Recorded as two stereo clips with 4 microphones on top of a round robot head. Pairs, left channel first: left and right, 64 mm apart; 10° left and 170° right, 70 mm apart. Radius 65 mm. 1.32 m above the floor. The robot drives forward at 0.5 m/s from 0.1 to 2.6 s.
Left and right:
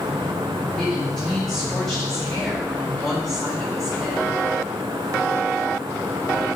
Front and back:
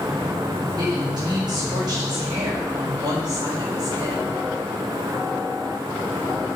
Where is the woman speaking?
170° left, 4.5 m; by 4.2 s 175° left, 5.5 m.